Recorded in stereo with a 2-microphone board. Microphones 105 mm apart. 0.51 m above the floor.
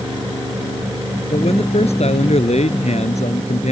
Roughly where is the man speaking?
Left.